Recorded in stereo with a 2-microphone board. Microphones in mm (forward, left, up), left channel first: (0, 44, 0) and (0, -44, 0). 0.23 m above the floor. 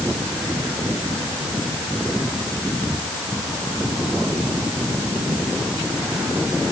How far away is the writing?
No writing in this recording.